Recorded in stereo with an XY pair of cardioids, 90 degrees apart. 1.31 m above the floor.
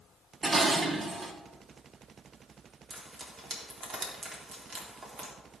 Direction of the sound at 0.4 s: 50° right.